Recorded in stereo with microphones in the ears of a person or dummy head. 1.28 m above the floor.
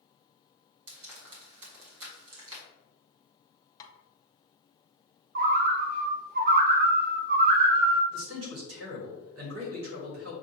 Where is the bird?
45° right (ahead or behind), 0.6 m.